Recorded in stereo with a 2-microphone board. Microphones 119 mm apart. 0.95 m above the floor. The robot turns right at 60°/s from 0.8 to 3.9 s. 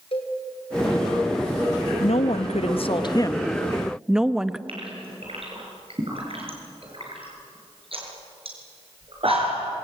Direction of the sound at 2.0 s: 70° left.